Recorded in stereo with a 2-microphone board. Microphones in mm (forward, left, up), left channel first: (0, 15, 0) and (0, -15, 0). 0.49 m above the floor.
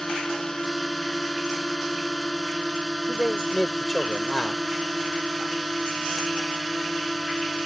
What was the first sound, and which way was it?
A drone, 10° left (ahead or behind).